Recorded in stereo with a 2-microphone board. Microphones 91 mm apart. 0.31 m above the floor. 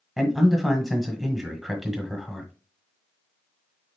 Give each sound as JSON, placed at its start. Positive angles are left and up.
{"t": 0.2, "sound": "a man speaking", "side_deg": 0, "distance_m": 1.1}